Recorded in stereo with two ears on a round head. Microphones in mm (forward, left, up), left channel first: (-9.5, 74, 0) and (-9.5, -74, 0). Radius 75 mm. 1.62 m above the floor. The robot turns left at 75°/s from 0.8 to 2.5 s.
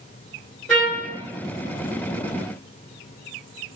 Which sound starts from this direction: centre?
A trumpet, at 0.7 s.